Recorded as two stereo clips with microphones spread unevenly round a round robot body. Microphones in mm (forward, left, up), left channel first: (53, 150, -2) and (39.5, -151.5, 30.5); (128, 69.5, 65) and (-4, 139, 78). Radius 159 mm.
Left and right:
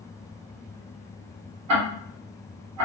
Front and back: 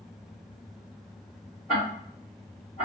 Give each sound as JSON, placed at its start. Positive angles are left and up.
{"t": 1.7, "sound": "ticking", "azimuth_deg": -125, "distance_m": 0.8}